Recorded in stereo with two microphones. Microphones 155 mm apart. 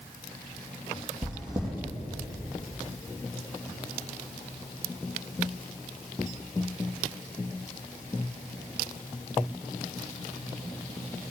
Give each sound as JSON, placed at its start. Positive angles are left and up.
{"t": 1.2, "sound": "chewing", "side_deg": -25, "distance_m": 2.5}